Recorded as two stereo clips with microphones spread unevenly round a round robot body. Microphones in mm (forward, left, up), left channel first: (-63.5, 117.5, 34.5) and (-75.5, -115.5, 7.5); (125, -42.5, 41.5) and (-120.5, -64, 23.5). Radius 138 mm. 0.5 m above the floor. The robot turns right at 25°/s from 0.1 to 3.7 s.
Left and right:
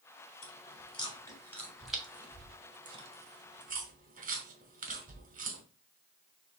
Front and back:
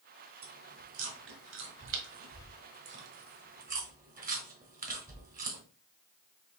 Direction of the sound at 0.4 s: 145° left.